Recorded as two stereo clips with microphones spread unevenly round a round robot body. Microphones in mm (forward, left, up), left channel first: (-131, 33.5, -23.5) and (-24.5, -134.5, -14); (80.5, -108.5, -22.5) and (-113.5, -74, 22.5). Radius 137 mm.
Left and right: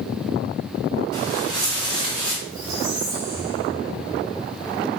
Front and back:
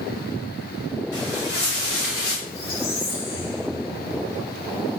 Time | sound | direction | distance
1.1 | footsteps | 30° right | 4.5 m
2.5 | a squeak | 15° right | 4.5 m